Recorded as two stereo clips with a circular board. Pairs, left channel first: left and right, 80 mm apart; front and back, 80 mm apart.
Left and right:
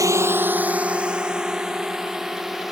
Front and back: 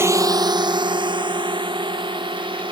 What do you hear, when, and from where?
0.0 s a drone: 130° right; by 2.7 s 175° right